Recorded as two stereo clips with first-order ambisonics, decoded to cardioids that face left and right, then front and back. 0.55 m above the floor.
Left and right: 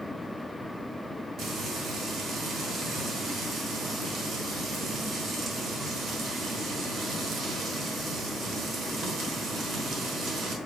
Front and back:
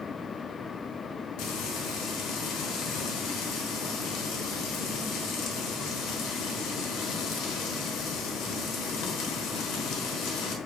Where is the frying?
30° right, 1.1 m.